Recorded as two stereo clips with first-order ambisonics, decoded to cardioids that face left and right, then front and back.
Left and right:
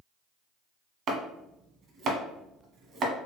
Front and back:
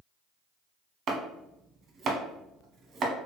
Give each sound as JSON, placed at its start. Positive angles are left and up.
{"t": 1.1, "sound": "chopping", "azimuth_deg": -135, "distance_m": 0.7}